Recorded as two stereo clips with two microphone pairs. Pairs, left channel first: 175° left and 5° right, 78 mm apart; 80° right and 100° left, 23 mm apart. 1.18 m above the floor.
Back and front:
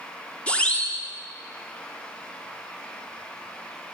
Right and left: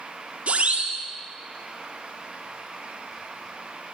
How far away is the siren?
About 3.5 m.